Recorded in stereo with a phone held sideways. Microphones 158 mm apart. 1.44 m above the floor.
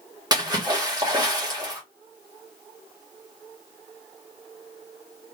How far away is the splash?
About 1.5 m.